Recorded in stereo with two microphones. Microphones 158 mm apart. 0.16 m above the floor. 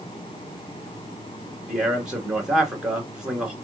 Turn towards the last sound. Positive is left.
turn(degrees=-5)  # may be behind; listen again after turning